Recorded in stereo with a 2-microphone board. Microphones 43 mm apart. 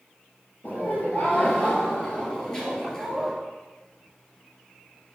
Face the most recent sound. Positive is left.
turn(degrees=5)  # may be behind; listen again after turning